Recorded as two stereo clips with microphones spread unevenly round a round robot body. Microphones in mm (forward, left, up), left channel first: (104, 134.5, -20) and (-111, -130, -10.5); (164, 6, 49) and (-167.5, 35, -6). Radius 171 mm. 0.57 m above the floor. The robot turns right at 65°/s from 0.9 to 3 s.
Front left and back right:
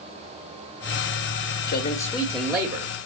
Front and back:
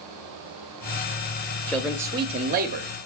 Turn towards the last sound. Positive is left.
turn(degrees=175)